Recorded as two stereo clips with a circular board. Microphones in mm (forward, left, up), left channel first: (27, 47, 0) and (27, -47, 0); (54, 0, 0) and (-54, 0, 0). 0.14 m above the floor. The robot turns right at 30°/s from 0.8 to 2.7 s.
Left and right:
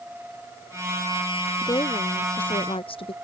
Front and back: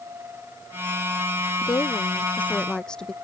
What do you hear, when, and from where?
1.6 s a woman speaking: 50° left; by 3.1 s 80° left